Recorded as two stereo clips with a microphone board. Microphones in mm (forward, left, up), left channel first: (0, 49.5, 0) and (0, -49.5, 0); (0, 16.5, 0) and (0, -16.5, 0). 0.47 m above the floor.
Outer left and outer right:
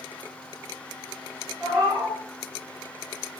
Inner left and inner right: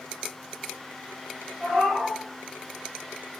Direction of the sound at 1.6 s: 10° right (ahead or behind).